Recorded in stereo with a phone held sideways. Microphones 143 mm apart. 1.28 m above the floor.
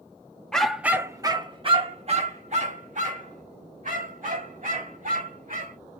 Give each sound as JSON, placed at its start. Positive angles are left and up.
{"t": 0.5, "sound": "a dog barking", "side_deg": 5, "distance_m": 0.8}